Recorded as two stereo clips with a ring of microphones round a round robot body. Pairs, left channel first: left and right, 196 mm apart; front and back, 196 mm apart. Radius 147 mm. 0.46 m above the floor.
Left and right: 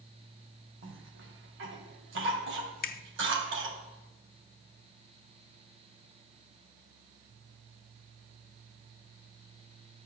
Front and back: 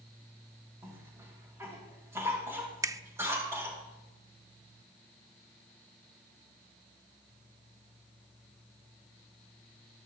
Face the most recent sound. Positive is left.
turn(degrees=110)